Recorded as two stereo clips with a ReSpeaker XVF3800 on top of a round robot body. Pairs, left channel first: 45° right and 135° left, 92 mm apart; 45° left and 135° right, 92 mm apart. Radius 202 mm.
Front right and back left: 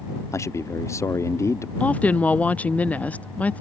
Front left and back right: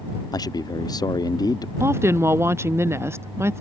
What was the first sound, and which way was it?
A man speaking, 10° left.